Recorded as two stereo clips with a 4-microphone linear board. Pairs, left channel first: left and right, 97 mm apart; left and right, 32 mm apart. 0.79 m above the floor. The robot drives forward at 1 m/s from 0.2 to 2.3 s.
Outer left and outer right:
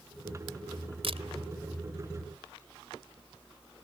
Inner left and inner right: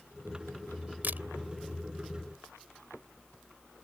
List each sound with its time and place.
1.0 s a camera shutter: 75° right (ahead or behind)